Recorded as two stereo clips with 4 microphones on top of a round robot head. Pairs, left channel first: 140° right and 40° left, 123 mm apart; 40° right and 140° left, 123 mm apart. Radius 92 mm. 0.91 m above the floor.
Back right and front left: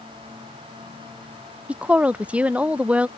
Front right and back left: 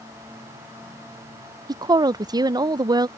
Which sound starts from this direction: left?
A woman speaking, at 1.7 s.